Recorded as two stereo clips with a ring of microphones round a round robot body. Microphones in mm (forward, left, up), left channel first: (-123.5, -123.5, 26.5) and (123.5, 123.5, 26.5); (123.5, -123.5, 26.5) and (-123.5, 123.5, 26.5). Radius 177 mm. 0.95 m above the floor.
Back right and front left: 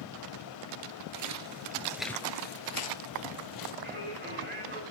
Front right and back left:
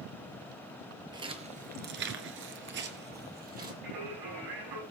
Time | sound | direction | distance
1.1 | footsteps | 60° left | 1.3 m
3.8 | singing | 110° left | 7 m